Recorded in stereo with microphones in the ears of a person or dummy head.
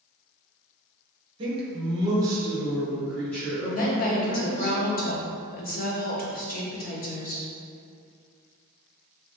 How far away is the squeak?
I don't hear a squeak.